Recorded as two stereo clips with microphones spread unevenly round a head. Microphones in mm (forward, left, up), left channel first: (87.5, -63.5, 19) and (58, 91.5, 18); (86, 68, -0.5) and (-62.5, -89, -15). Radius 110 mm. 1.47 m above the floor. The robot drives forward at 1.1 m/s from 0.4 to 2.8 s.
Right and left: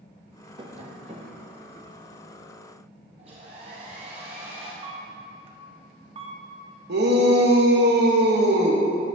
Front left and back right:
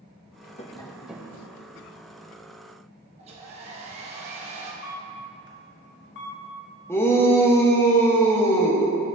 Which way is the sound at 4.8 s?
55° left.